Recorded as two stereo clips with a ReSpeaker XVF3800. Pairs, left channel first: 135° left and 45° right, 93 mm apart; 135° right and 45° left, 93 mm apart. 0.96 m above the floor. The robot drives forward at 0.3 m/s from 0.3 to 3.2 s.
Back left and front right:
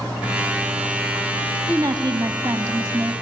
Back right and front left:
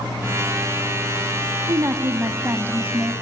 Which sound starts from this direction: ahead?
A woman speaking, at 1.7 s.